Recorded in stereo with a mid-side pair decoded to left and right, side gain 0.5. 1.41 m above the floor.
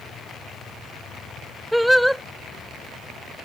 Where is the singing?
Straight ahead.